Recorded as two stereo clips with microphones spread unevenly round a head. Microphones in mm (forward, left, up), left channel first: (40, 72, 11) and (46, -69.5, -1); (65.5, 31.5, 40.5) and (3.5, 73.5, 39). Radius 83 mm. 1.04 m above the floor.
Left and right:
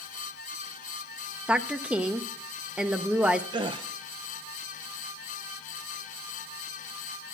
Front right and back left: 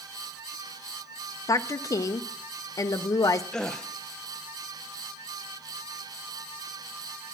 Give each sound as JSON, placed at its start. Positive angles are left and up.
{"t": 1.5, "sound": "a woman speaking", "azimuth_deg": -15, "distance_m": 0.5}
{"t": 3.5, "sound": "a gasp", "azimuth_deg": -115, "distance_m": 0.6}